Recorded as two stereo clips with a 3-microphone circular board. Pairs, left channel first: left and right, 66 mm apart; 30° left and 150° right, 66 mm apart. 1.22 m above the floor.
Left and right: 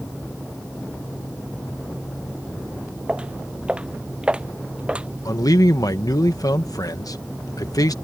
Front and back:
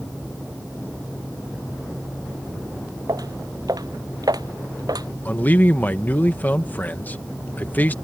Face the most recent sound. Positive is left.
turn(degrees=90)